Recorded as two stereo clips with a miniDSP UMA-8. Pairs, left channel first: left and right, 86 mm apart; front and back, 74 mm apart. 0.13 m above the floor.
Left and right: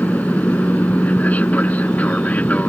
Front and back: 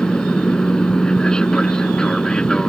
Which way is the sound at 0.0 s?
60° left.